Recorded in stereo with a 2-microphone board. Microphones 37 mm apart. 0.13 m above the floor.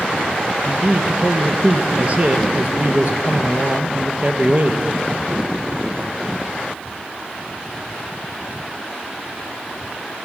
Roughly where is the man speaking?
Right.